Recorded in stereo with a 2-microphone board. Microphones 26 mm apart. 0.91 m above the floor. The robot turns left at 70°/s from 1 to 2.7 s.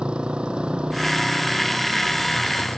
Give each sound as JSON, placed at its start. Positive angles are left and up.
{"t": 0.0, "sound": "a motorcycle", "side_deg": -45}